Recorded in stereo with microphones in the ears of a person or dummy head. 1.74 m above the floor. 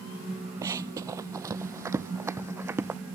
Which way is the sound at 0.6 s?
15° right (ahead or behind).